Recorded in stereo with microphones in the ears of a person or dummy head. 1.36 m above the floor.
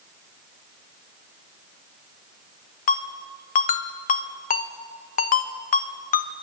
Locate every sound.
2.9 s a ringtone: 45° left (ahead or behind), 1.0 m